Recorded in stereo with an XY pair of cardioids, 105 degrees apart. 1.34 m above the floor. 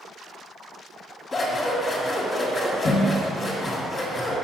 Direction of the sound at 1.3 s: 35° left.